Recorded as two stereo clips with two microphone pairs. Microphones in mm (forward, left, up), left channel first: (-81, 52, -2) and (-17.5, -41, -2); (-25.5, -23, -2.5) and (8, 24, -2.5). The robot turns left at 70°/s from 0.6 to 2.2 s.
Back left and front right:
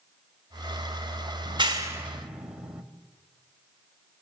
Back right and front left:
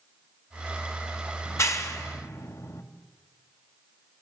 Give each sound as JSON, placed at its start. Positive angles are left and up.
{"t": 1.4, "sound": "a clap", "azimuth_deg": -85, "distance_m": 2.0}